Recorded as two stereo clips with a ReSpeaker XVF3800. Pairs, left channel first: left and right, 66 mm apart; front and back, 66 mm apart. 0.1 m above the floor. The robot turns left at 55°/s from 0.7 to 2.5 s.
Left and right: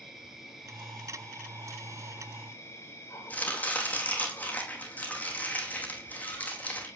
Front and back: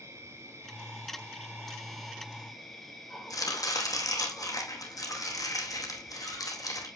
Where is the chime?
No chime in this recording.